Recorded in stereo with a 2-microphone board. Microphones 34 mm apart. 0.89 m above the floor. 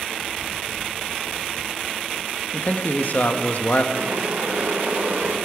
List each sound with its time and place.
2.5 s a man speaking: 50° left (ahead or behind), 0.9 m
3.9 s boiling: 75° right (ahead or behind), 2 m